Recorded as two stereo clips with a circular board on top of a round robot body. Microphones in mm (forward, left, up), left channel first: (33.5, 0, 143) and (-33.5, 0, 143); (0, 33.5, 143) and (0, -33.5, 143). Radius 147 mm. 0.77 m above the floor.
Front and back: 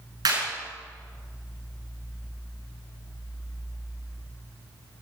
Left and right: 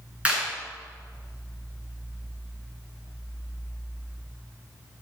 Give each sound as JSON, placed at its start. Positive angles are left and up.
{"t": 0.2, "sound": "a clap", "azimuth_deg": -165, "distance_m": 8.0}